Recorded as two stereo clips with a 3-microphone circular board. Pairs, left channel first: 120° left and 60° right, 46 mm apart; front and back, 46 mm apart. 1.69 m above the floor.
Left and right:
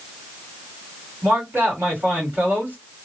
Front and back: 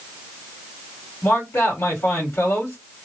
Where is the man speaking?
20° right, 1.8 m.